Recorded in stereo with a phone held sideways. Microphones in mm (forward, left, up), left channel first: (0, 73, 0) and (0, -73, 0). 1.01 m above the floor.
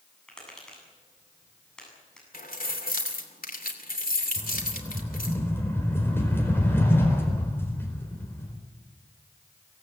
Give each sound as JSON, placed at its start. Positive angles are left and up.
{"t": 0.3, "sound": "tapping", "side_deg": 5, "distance_m": 8.0}
{"t": 2.3, "sound": "keys jangling", "side_deg": 75, "distance_m": 2.5}
{"t": 4.4, "sound": "a rattle", "side_deg": 15, "distance_m": 4.5}